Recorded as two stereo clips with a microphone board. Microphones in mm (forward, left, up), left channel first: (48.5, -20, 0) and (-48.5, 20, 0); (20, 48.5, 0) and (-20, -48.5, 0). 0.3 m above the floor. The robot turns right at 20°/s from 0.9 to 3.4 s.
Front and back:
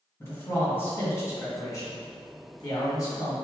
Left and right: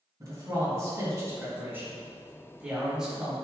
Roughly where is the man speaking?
Right.